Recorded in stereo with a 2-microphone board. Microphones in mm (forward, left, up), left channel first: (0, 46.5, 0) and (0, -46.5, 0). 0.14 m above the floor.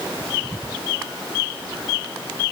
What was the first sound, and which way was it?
Only background noise.